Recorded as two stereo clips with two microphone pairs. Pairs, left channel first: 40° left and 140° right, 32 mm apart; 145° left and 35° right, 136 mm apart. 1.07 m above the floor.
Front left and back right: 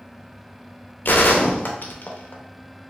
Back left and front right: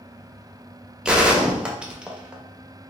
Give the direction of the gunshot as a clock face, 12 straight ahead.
10 o'clock.